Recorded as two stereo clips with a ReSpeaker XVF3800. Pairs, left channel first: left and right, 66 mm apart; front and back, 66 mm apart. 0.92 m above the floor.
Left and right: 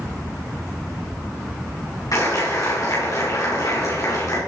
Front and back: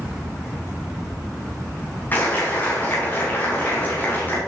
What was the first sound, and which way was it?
A clap, 60° left.